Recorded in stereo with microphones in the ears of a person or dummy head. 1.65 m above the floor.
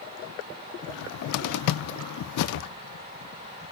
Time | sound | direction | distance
0.9 | a cupboard door | 60° left (ahead or behind) | 0.6 m